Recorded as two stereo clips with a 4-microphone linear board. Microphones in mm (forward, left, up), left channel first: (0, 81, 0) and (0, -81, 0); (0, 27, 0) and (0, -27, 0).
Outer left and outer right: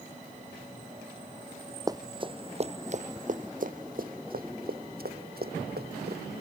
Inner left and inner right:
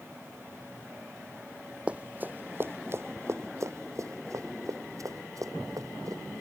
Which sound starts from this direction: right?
Running footsteps, at 1.9 s.